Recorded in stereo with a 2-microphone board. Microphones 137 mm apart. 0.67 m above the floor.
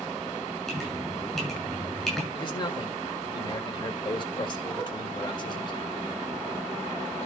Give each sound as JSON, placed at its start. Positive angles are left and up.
{"t": 0.7, "sound": "dripping", "side_deg": 5, "distance_m": 7.0}
{"t": 2.4, "sound": "a man speaking", "side_deg": 35, "distance_m": 2.0}